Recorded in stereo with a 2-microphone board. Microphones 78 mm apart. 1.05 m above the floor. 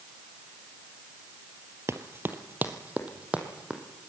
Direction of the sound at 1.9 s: 35° right (ahead or behind).